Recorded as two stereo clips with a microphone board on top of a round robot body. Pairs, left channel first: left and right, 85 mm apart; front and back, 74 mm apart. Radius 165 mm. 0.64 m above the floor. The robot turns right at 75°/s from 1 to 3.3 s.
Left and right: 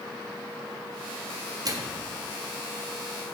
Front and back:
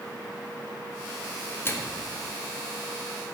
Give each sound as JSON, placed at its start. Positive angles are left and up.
{"t": 1.6, "sound": "a microwave", "azimuth_deg": -55, "distance_m": 1.5}